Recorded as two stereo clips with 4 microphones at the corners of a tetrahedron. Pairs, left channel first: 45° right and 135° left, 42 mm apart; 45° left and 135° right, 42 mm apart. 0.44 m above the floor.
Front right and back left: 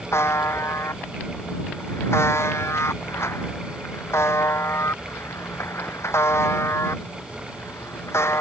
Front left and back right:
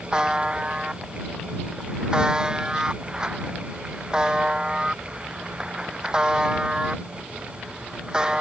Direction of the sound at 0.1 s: 60° right.